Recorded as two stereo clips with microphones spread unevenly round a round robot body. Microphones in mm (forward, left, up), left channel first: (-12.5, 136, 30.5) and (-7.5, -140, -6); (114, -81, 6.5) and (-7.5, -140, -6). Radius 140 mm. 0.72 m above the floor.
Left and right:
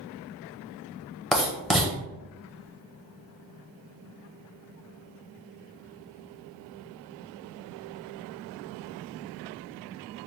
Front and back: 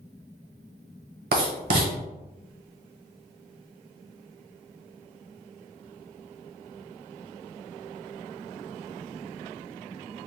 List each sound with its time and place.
1.3 s writing: straight behind, 1.0 m